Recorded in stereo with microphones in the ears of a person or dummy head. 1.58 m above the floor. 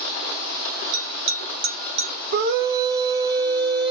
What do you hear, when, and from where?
0.9 s a bell: 75° right (ahead or behind), 0.9 m
2.3 s a scream: 65° right (ahead or behind), 0.9 m